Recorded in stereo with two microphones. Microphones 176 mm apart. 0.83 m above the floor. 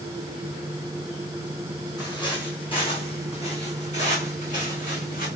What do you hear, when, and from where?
2.0 s footsteps: 20° left (ahead or behind), 3 m; by 5.3 s 50° left (ahead or behind), 3.5 m